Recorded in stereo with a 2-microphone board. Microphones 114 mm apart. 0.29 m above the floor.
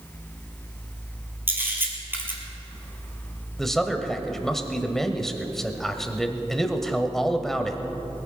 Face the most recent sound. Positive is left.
turn(degrees=5)  # may be behind; listen again after turning